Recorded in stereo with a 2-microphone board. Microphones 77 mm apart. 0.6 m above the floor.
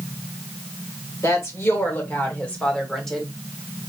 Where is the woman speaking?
45° left (ahead or behind), 1.6 m; by 3.3 s centre (ahead or behind), 1.5 m.